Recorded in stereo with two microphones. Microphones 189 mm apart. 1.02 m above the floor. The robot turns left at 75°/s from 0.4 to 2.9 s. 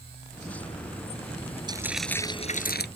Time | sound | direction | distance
1.7 | frying | 155° right | ?